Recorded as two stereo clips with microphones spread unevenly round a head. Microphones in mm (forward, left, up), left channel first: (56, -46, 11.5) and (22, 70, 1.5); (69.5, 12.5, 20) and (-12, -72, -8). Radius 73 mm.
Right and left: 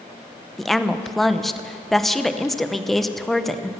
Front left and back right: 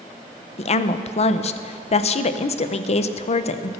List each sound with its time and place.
0.6 s a woman speaking: 15° left, 0.8 m